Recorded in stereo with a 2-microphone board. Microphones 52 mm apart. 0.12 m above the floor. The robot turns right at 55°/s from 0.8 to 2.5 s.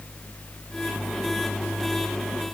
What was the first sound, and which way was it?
Only background noise.